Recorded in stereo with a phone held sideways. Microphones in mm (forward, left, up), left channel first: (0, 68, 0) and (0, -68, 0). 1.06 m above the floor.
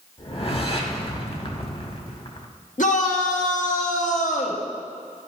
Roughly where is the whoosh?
Left.